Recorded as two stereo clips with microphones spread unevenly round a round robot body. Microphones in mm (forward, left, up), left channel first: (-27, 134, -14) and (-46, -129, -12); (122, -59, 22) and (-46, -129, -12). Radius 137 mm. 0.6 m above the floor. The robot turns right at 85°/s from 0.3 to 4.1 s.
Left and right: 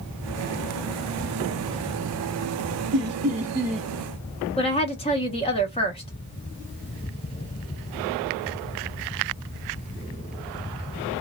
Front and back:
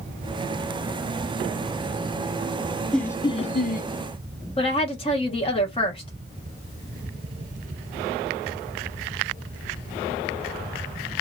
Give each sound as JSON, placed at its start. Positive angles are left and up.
{"t": 2.9, "sound": "laughter", "azimuth_deg": -75, "distance_m": 1.0}
{"t": 4.6, "sound": "a woman speaking", "azimuth_deg": 65, "distance_m": 0.9}